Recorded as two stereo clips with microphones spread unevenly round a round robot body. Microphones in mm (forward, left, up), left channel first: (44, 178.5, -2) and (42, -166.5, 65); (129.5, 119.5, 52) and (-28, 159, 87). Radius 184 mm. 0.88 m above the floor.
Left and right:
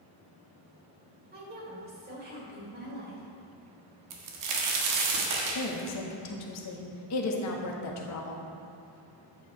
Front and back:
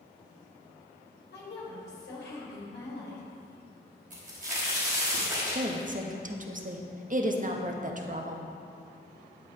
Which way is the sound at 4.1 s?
135° right.